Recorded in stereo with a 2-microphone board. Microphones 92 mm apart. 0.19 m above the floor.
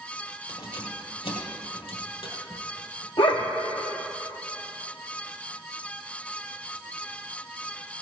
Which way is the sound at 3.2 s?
70° left (ahead or behind).